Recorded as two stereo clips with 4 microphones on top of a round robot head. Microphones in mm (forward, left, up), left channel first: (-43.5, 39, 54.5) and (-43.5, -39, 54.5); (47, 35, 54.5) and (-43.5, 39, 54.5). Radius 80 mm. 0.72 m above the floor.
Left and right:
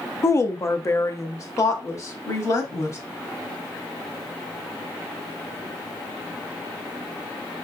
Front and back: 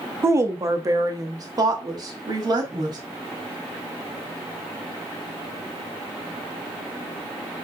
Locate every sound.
0.2 s a woman speaking: 130° left, 0.8 m; by 3.0 s 135° left, 2 m